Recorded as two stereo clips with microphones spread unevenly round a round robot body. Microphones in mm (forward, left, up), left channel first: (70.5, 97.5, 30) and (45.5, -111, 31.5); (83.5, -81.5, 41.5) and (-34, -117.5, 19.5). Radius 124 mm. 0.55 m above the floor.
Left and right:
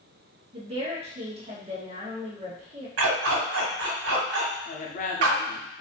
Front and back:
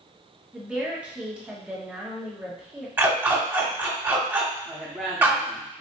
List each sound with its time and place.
0.5 s a woman speaking: 110° right, 1.3 m
3.0 s a dog barking: 90° right, 1.4 m
4.7 s a woman speaking: 115° left, 0.8 m